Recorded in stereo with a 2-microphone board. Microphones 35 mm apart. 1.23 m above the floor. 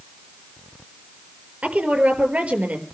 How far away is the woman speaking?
About 5 m.